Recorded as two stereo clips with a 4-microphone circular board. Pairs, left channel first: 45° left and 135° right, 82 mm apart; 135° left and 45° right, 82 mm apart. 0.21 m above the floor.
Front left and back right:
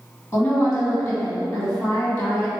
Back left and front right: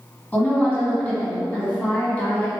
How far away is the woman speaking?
About 1.7 m.